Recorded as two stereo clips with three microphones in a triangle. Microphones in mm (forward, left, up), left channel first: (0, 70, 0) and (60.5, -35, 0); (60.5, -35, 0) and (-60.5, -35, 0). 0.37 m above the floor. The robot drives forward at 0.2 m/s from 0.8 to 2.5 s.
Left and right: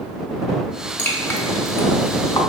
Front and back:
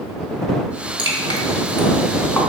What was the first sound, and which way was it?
Dripping, 45° left.